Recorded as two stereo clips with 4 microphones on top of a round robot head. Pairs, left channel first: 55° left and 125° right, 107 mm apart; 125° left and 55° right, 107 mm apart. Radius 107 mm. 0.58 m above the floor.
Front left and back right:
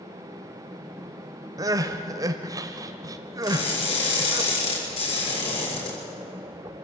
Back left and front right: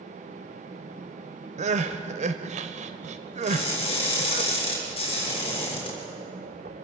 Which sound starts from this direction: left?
Crushing, at 3.4 s.